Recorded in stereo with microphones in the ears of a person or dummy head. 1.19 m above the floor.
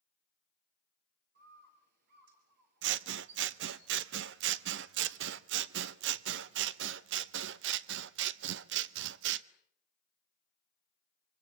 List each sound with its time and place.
1.4 s a bird: 55° right (ahead or behind), 3.5 m
2.8 s scissors: 75° right (ahead or behind), 0.7 m